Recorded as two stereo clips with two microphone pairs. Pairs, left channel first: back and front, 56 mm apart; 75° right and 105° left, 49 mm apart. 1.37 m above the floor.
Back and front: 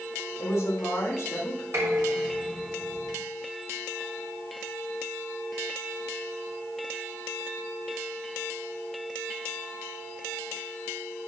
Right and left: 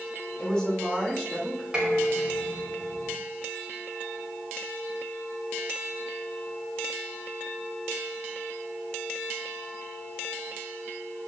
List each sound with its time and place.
0.4 s a woman speaking: 150° right, 3 m
1.7 s dishes clattering: 35° left, 4 m